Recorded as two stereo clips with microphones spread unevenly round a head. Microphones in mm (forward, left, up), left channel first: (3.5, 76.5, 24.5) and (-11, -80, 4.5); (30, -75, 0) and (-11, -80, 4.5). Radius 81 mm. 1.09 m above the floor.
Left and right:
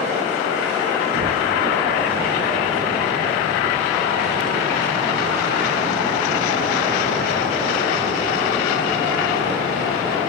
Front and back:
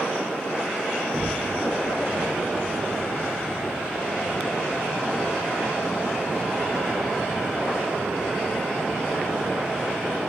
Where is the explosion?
75° right, 1.3 m.